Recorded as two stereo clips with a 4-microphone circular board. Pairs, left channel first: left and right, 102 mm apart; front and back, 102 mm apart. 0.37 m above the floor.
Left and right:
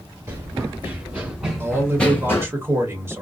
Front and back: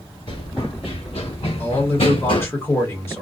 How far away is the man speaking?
About 1.2 m.